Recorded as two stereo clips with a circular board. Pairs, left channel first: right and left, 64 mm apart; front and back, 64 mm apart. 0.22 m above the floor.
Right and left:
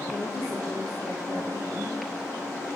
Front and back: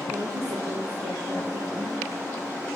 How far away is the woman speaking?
About 3.5 m.